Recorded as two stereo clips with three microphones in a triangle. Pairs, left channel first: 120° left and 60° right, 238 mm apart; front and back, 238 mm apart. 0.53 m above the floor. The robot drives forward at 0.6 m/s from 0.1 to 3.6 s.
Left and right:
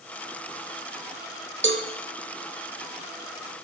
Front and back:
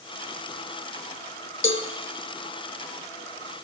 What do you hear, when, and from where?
1.6 s a cowbell: 30° right, 0.6 m; by 1.8 s 35° right, 0.5 m